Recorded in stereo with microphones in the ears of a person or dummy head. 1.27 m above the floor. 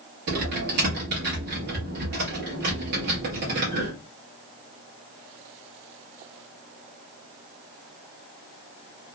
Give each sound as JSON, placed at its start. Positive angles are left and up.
{"t": 0.3, "sound": "typing on a keyboard", "side_deg": -50, "distance_m": 1.1}